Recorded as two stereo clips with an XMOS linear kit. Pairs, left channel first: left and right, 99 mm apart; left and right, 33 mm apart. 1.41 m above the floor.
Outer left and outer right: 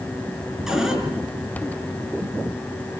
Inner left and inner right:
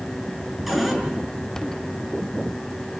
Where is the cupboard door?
5° right (ahead or behind), 6 m.